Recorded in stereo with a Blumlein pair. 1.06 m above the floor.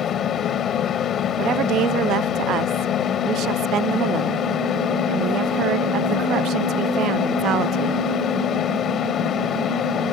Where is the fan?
25° left.